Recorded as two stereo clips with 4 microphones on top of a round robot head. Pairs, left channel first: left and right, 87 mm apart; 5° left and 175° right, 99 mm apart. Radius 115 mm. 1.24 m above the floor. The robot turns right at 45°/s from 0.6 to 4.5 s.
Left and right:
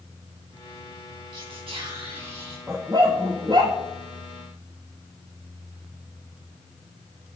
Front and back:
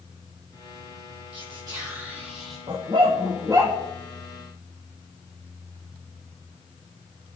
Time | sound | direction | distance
1.3 | whispering | 135° right | 3.5 m
2.7 | a dog barking | 155° right | 0.6 m